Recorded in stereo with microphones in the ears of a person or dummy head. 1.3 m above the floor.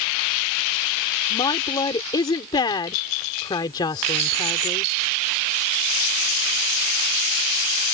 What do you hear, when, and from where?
1.3 s a woman speaking: 25° left (ahead or behind)